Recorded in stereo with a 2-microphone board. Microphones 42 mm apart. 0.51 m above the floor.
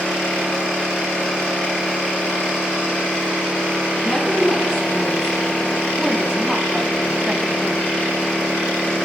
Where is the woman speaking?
5° right (ahead or behind), 5.5 m; by 7.9 s 35° right (ahead or behind), 3.5 m.